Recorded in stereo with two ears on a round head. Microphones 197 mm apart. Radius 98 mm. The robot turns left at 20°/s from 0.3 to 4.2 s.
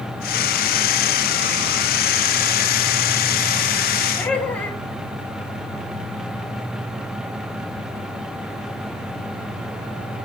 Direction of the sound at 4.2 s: 10° left (ahead or behind).